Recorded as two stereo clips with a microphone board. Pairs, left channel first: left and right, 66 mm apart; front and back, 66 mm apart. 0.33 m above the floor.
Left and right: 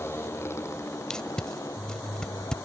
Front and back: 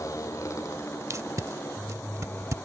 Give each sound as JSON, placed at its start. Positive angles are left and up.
{"t": 0.0, "sound": "a motorcycle", "azimuth_deg": 40}
{"t": 1.1, "sound": "tape being pulled", "azimuth_deg": 165}